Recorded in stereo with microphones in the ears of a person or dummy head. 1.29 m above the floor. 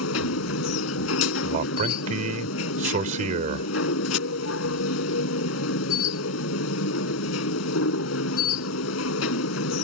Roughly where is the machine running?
Left.